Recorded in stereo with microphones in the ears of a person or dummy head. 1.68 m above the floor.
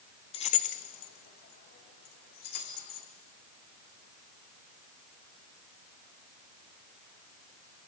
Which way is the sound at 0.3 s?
30° left (ahead or behind).